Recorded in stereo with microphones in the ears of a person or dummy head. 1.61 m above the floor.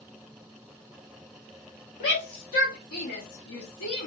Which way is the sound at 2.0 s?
65° left (ahead or behind).